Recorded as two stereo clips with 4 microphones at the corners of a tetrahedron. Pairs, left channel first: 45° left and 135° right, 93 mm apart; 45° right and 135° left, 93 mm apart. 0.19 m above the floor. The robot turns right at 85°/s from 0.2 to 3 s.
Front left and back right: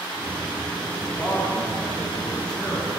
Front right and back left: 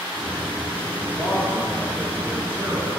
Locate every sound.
1.0 s a man speaking: 55° right, 2.0 m; by 2.9 s 110° left, 2.0 m